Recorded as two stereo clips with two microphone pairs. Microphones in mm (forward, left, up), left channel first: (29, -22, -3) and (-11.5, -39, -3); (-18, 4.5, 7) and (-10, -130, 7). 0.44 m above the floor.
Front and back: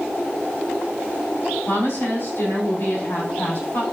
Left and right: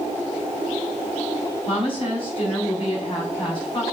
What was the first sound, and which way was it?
A woman speaking, 50° left.